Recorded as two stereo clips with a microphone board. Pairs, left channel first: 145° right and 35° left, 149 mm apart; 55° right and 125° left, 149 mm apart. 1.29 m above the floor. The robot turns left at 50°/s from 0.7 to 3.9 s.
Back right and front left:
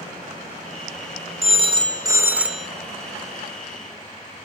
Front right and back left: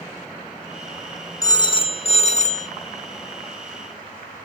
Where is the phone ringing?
5° left, 0.7 m; by 2.7 s 60° right, 0.7 m.